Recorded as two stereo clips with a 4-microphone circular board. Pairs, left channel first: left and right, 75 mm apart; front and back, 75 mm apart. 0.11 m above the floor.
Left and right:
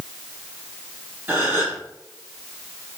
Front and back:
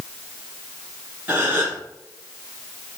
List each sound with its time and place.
1.3 s a gasp: 130° right, 2.0 m